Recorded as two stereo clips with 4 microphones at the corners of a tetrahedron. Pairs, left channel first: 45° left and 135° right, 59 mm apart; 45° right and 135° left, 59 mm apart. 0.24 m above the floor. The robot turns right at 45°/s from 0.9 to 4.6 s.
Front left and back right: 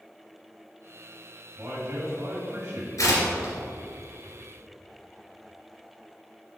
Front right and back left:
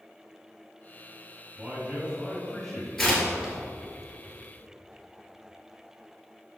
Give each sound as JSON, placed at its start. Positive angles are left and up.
{"t": 1.6, "sound": "a man speaking", "azimuth_deg": 175, "distance_m": 1.8}
{"t": 3.0, "sound": "tearing paper", "azimuth_deg": 40, "distance_m": 2.0}